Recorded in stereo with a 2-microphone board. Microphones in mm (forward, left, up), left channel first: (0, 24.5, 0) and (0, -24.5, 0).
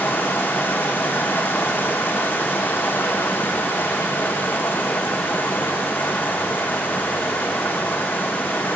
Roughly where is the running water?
Left.